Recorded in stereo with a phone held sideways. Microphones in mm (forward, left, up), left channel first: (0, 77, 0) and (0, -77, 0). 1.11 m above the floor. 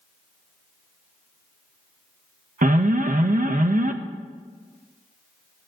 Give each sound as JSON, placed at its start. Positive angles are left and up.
{"t": 2.6, "sound": "an alarm", "side_deg": -60, "distance_m": 0.6}